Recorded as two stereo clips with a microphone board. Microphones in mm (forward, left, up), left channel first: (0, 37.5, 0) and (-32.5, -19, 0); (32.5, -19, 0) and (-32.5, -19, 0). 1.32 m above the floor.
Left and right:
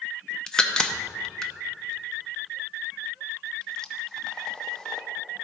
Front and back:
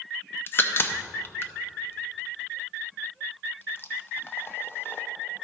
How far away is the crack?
About 0.6 m.